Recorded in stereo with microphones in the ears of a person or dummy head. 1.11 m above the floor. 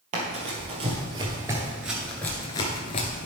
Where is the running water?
I don't hear running water.